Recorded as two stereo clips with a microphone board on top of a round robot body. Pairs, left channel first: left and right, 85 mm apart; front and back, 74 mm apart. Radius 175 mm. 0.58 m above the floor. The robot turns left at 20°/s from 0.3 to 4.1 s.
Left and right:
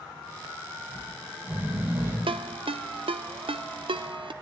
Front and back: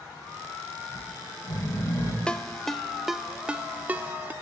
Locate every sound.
0.9 s snoring: 10° right, 9.5 m; by 2.2 s 35° right, 9.5 m
2.3 s a ringtone: 80° right, 0.9 m; by 4.3 s 115° right, 0.9 m